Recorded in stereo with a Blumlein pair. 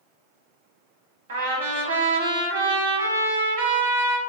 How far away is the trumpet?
About 0.8 m.